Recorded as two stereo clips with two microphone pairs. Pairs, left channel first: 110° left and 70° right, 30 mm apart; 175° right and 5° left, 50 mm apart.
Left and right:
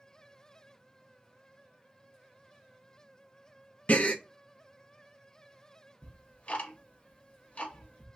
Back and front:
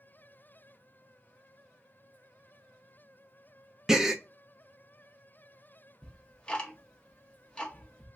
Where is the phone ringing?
I don't hear a phone ringing.